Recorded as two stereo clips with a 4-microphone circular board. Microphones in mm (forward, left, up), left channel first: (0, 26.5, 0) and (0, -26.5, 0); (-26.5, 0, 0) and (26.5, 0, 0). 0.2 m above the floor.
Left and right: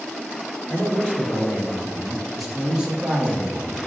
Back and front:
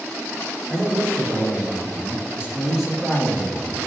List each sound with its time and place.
0.7 s a man speaking: 35° left, 2.0 m; by 3.8 s 125° right, 1.4 m